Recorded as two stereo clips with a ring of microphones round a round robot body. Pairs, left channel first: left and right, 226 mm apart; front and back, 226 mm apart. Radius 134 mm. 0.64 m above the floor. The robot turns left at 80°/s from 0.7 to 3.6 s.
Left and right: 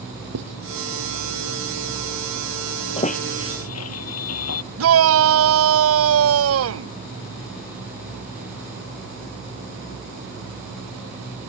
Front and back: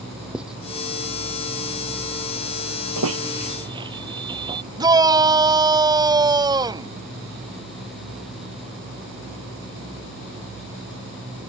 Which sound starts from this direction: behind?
A squeak, at 3.0 s.